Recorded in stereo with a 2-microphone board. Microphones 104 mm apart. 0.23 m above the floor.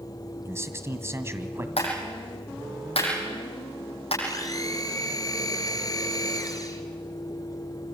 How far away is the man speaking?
About 1.7 m.